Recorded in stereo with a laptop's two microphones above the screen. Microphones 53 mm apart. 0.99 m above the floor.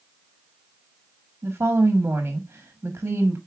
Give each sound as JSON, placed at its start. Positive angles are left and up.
{"t": 1.4, "sound": "a woman speaking", "side_deg": -45, "distance_m": 1.3}